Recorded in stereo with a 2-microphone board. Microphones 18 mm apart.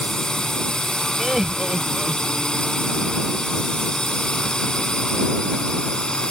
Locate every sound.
0.0 s a drone: 45° left (ahead or behind); by 6.3 s 50° left (ahead or behind)
1.2 s laughter: 20° right (ahead or behind)